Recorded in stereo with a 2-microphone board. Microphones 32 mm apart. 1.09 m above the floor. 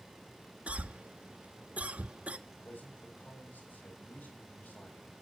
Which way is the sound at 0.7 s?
45° right (ahead or behind).